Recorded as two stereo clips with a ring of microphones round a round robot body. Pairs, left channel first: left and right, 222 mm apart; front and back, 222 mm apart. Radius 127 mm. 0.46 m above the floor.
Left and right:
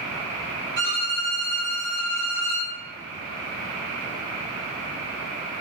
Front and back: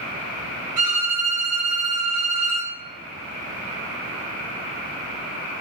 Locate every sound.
0.8 s a violin: 125° right, 0.8 m